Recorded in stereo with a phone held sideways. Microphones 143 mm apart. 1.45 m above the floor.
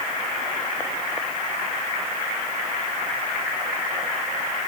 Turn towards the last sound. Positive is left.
No sound to turn to.